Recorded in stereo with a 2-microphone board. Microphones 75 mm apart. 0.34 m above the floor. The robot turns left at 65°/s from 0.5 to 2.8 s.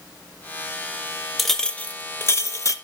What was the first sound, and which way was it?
A clink, straight behind.